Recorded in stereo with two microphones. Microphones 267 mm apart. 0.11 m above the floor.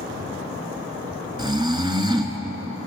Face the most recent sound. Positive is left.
turn(degrees=-15)  # may be behind; listen again after turning